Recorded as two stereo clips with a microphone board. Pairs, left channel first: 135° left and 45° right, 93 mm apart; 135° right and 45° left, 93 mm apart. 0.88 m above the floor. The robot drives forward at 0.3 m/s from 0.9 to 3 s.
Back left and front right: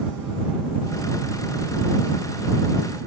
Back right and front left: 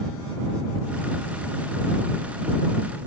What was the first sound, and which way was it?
Only background noise.